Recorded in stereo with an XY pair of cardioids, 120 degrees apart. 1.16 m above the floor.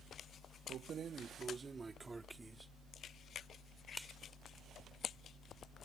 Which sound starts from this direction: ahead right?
Keys jangling, at 0.7 s.